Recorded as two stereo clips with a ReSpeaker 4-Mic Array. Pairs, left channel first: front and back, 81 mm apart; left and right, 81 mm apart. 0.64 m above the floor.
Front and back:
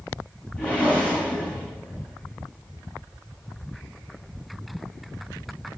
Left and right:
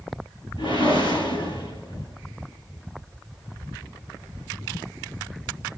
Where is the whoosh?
75° left, 8 m.